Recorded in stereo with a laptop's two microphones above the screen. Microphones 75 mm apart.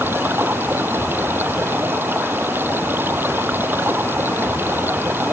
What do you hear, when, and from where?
0.0 s running water: 30° right (ahead or behind)